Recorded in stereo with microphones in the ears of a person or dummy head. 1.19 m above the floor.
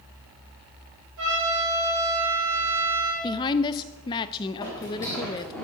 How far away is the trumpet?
About 4.5 m.